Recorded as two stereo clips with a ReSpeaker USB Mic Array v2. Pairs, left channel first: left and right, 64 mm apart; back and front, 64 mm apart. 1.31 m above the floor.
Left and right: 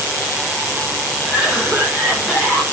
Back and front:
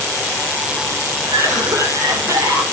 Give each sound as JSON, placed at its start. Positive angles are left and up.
{"t": 1.3, "sound": "a cough", "azimuth_deg": 0, "distance_m": 7.0}